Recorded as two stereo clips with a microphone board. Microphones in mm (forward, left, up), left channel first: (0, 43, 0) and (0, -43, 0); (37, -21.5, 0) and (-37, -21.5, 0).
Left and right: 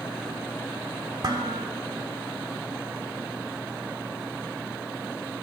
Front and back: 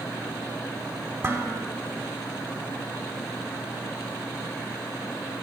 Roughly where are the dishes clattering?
Behind right.